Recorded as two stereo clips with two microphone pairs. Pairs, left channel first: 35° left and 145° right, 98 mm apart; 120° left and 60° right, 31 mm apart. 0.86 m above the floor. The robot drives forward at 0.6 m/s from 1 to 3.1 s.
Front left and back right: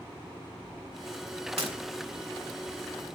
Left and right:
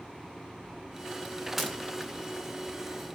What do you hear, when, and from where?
1.6 s breaking glass: 145° right, 1.8 m